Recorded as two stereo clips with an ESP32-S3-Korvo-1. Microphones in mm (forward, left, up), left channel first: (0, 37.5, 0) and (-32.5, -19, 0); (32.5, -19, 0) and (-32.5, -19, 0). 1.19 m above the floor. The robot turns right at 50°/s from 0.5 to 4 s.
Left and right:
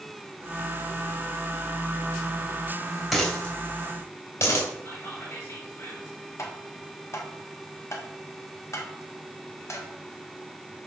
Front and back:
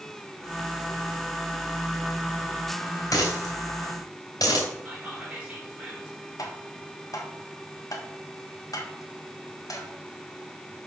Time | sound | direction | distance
3.1 | a dropped coin | 25° right | 3 m
4.8 | whispering | 110° left | 4 m
6.4 | tapping | 25° left | 1.3 m